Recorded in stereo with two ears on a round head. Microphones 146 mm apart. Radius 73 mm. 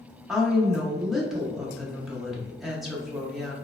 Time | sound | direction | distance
0.3 | a woman speaking | 5° right (ahead or behind) | 0.6 m